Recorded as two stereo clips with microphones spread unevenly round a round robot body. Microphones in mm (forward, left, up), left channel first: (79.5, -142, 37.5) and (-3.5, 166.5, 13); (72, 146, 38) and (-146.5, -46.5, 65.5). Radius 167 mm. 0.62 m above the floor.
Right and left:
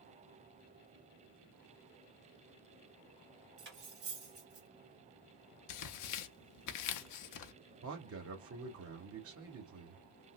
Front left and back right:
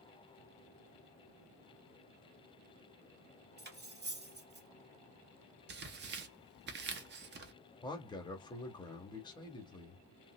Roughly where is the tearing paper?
Right.